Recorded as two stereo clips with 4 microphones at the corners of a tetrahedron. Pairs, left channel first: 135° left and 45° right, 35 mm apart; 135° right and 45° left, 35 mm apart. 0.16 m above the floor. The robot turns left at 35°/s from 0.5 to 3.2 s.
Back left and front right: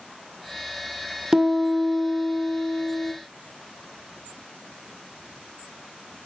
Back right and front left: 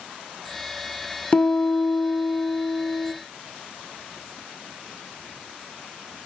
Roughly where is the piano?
Right.